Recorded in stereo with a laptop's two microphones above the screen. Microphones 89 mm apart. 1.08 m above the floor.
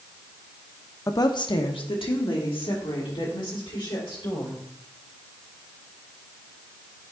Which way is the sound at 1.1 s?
35° left (ahead or behind).